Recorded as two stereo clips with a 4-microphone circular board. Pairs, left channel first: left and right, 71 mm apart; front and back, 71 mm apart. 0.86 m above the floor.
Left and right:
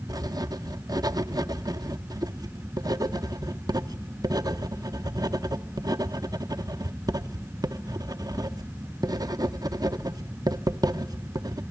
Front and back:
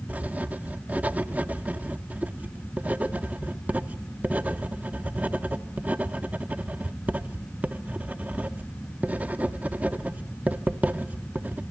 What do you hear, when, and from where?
0.1 s writing: 115° right, 0.7 m